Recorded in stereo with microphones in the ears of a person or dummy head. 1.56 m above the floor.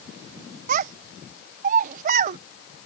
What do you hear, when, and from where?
0.7 s a child speaking: 45° right (ahead or behind)